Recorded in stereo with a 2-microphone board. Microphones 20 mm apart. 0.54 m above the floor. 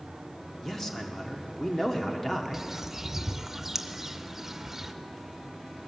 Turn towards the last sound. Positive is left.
turn(degrees=-15)  # may be behind; listen again after turning